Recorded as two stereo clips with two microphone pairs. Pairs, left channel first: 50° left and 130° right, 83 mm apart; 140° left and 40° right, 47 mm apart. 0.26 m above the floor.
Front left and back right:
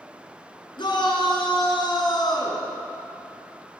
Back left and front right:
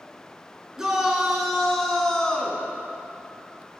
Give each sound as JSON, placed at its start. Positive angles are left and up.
{"t": 0.8, "sound": "a shout", "azimuth_deg": 35, "distance_m": 2.5}